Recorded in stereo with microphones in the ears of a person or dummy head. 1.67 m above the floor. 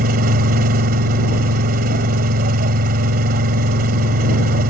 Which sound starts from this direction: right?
An engine running, at 0.0 s.